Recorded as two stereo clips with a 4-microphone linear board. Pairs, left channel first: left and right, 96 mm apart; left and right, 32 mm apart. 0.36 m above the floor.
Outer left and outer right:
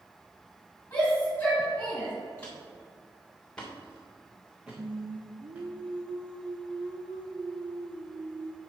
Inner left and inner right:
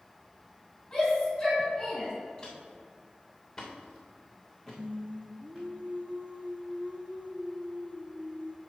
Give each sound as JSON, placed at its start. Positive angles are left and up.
{"t": 0.9, "sound": "a shout", "side_deg": 20, "distance_m": 3.0}
{"t": 2.4, "sound": "footsteps", "side_deg": 15, "distance_m": 3.0}
{"t": 4.8, "sound": "singing", "side_deg": -60, "distance_m": 1.0}